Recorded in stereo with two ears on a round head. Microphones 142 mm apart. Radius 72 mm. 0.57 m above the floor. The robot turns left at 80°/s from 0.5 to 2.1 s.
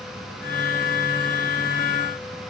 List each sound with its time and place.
Only background noise.